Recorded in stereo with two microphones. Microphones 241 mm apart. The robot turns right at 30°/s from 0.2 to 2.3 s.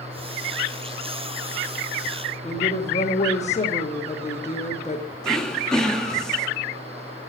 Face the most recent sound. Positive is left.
turn(degrees=5)  # may be behind; listen again after turning